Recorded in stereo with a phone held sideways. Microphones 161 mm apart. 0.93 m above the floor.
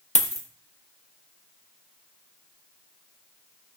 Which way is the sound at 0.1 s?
50° left (ahead or behind).